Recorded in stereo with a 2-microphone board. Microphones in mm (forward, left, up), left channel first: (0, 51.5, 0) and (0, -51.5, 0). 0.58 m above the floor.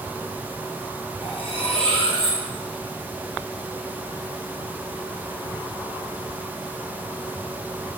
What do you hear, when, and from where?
1.2 s cutlery clinking: 65° left (ahead or behind), 4.5 m